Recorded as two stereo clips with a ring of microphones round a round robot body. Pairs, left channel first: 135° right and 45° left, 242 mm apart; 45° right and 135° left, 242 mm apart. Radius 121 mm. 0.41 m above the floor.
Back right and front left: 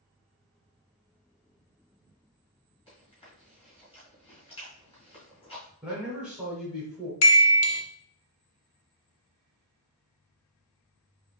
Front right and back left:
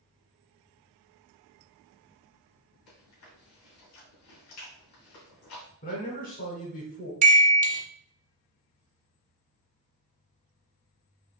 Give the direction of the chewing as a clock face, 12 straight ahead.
2 o'clock.